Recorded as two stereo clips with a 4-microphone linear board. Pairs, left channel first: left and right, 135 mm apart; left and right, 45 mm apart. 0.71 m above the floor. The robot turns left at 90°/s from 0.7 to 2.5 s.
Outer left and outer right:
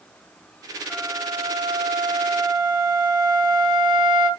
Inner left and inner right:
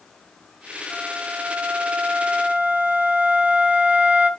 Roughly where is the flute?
Ahead.